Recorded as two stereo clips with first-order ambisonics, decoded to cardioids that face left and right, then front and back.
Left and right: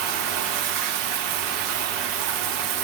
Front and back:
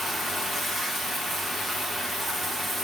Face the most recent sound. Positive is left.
turn(degrees=-90)